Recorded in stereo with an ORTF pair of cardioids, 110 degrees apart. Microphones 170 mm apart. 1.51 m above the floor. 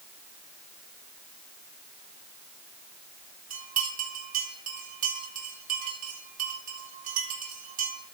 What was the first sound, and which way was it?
A bell, 50° right.